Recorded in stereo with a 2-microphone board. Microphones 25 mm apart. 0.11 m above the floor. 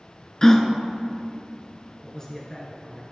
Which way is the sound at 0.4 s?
25° left (ahead or behind).